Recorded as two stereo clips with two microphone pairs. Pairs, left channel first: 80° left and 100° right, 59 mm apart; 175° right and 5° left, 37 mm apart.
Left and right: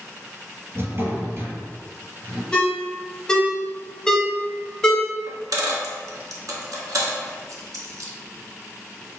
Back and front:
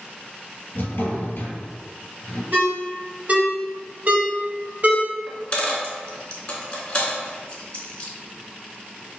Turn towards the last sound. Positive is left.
turn(degrees=-115)